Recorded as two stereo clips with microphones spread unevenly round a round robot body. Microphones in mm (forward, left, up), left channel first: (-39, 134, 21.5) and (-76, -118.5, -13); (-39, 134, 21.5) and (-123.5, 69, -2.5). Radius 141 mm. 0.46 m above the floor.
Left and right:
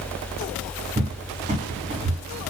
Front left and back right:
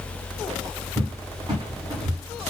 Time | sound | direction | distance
1.0 | a cupboard door | 140° right | 1.1 m